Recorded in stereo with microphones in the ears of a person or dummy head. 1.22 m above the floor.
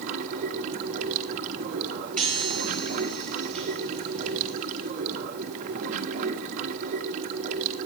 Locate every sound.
0.0 s running water: 40° right (ahead or behind), 1.5 m
2.2 s a chime: 5° left (ahead or behind), 5 m